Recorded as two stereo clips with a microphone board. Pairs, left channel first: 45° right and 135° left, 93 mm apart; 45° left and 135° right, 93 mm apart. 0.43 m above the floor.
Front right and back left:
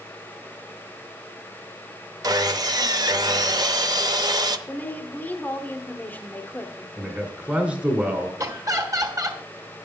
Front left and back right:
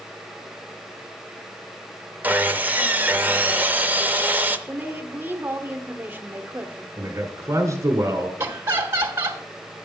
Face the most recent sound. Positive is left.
turn(degrees=170)